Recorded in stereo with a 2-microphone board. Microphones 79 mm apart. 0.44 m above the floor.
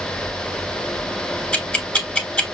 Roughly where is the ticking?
Centre.